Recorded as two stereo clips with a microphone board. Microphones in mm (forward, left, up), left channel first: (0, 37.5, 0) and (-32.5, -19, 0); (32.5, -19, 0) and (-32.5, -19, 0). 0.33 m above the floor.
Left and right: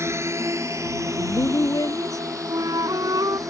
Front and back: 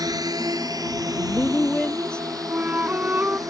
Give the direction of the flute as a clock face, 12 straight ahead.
4 o'clock.